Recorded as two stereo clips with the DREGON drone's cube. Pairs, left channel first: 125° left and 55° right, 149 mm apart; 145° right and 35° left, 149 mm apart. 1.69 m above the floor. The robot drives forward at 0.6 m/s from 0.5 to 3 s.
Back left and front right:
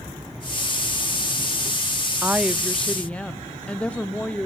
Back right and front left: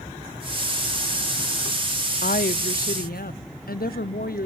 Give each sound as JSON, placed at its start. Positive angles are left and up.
{"t": 2.2, "sound": "a woman speaking", "azimuth_deg": -130, "distance_m": 0.6}